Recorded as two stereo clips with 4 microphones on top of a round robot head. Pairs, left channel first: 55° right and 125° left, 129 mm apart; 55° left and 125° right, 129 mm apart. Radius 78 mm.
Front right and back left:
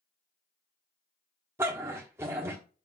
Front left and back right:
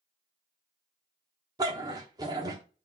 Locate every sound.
1.6 s a dog barking: 175° right, 1.0 m